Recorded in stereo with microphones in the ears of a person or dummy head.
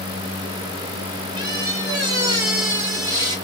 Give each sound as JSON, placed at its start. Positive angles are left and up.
{"t": 1.4, "sound": "a squeak", "side_deg": -20, "distance_m": 1.9}